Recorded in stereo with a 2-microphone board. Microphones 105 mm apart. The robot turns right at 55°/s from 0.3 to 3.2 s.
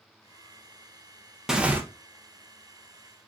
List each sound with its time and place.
1.5 s tearing paper: 5° right (ahead or behind), 0.7 m; by 1.8 s 20° right (ahead or behind), 0.7 m